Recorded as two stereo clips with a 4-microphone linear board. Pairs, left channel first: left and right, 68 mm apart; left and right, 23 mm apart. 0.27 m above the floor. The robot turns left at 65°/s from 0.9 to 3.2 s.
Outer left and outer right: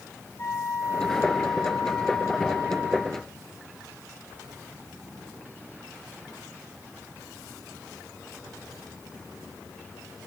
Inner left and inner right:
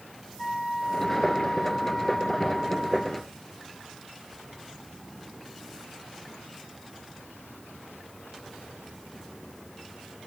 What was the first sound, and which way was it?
A flute, 110° left.